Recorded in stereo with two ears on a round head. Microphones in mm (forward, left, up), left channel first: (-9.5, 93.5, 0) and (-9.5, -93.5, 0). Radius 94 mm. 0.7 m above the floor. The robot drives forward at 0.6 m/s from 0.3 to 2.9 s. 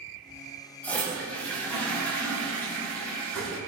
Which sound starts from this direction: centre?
A toilet flushing, at 0.8 s.